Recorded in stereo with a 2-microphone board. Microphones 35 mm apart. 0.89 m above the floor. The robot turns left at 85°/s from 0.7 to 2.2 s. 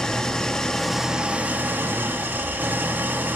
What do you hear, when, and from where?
0.0 s an engine running: 20° left, 1.0 m; by 3.4 s 110° right, 1.0 m